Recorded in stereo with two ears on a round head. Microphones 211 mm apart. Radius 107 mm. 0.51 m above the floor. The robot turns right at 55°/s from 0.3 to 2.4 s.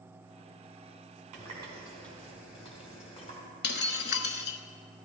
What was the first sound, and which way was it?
A running tap, 35° right.